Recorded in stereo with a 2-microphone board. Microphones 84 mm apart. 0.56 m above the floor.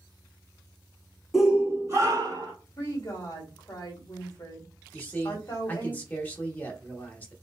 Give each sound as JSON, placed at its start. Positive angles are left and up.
{"t": 1.3, "sound": "a shout", "side_deg": 0, "distance_m": 0.7}
{"t": 2.8, "sound": "a woman speaking", "side_deg": 40, "distance_m": 1.2}
{"t": 4.9, "sound": "a man speaking", "side_deg": 20, "distance_m": 1.0}